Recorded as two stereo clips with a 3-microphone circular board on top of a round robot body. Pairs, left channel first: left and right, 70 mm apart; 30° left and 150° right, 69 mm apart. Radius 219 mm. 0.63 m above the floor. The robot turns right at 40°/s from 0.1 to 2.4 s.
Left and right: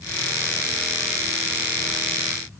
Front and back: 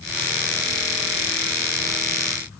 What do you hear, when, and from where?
Only background noise.